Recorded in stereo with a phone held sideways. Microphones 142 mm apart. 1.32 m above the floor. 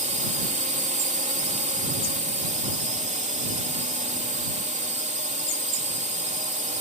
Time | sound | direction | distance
0.0 | a drone | 55° right (ahead or behind) | ?